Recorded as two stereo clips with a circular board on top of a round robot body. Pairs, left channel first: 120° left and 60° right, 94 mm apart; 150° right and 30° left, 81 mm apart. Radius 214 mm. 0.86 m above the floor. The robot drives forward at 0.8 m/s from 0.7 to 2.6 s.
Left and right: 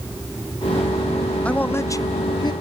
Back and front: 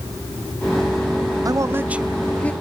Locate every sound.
1.4 s a man speaking: 45° left, 0.8 m; by 2.5 s 145° left, 0.9 m